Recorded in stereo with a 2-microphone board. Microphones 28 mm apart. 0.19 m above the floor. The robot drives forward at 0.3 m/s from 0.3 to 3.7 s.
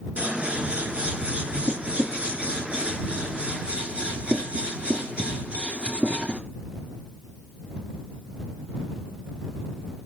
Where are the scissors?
60° right (ahead or behind), 2.5 m; by 6.4 s 50° right (ahead or behind), 2.5 m.